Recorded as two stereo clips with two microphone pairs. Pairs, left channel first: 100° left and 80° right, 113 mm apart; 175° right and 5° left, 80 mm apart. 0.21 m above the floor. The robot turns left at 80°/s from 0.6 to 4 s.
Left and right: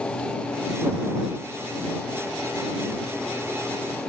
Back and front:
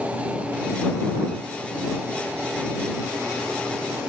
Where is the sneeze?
I don't hear a sneeze.